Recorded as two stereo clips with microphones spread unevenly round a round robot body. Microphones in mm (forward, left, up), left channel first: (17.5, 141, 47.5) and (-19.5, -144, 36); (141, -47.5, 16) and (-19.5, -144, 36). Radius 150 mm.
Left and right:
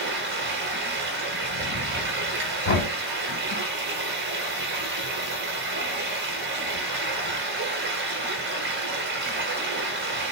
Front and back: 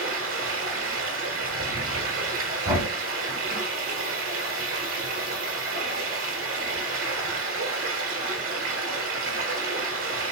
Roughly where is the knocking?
Behind left.